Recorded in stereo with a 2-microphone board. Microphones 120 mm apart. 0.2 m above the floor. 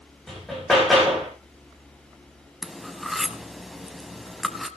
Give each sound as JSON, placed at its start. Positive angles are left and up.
{"t": 0.3, "sound": "hammering", "side_deg": 0, "distance_m": 8.5}
{"t": 2.6, "sound": "cutlery clinking", "side_deg": 0, "distance_m": 0.9}